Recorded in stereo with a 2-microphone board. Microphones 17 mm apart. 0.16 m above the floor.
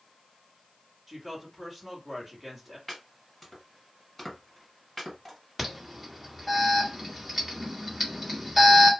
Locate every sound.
1.1 s a woman speaking: 10° right (ahead or behind), 1.7 m
2.9 s chopping: 10° left (ahead or behind), 1.9 m
5.6 s an alarm: 10° right (ahead or behind), 1.8 m